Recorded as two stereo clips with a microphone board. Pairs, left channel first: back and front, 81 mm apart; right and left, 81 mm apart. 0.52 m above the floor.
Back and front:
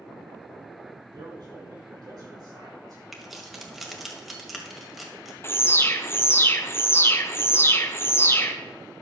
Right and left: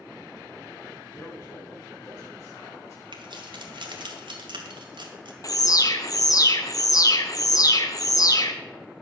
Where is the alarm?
125° right, 0.9 m.